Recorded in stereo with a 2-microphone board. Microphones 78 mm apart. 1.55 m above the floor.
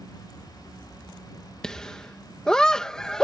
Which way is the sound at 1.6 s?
5° left (ahead or behind).